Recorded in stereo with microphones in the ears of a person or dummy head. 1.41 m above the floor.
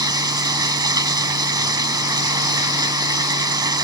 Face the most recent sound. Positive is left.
turn(degrees=-10)  # may be behind; listen again after turning